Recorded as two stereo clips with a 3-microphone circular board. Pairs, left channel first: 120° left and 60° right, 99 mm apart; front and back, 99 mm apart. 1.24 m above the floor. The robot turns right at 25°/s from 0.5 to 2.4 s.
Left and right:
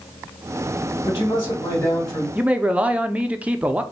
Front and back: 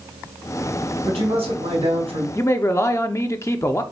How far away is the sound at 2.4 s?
About 0.5 m.